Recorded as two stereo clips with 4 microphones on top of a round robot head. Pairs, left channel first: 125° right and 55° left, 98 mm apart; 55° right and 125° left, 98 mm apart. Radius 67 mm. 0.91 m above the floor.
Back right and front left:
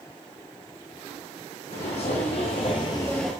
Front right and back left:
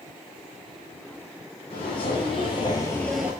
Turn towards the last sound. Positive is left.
turn(degrees=145)